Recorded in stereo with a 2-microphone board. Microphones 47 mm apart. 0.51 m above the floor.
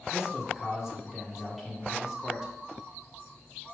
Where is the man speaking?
5° right (ahead or behind), 1.5 m.